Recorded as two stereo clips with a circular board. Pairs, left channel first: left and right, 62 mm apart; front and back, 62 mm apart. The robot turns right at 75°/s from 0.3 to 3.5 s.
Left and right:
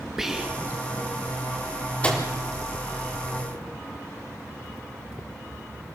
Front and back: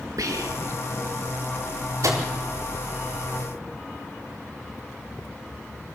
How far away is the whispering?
About 2.5 m.